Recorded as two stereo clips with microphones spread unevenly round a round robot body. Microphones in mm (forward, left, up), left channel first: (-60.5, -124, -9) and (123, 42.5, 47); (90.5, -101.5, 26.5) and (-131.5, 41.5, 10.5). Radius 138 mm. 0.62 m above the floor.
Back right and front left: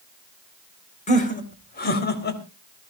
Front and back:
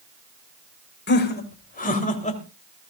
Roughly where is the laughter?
Right.